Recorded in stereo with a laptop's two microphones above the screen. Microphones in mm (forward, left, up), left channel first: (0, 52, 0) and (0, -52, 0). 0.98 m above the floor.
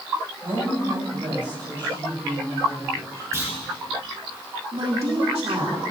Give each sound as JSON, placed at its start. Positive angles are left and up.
{"t": 0.4, "sound": "a woman speaking", "side_deg": -60, "distance_m": 5.5}
{"t": 3.3, "sound": "a clunk", "side_deg": -30, "distance_m": 3.5}
{"t": 4.7, "sound": "a woman speaking", "side_deg": -70, "distance_m": 2.5}